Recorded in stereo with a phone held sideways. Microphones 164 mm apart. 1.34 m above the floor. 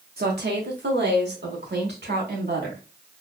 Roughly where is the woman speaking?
Right.